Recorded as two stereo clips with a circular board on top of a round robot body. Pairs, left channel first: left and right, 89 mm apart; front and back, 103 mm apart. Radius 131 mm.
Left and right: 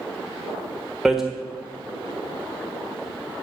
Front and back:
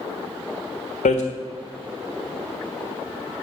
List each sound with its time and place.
1.1 s hammering: 5° right, 1.4 m